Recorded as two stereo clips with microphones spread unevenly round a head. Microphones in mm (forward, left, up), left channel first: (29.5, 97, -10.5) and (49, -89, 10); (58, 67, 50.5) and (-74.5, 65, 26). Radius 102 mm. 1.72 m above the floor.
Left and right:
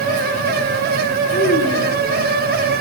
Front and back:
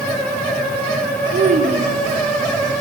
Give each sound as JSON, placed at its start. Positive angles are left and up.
{"t": 1.3, "sound": "a child speaking", "azimuth_deg": 150, "distance_m": 4.0}